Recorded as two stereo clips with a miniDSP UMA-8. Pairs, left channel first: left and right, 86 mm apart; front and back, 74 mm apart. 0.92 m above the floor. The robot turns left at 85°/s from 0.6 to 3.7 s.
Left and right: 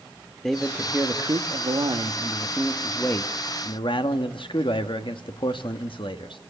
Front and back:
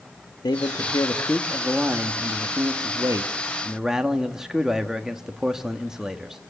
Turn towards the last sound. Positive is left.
turn(degrees=100)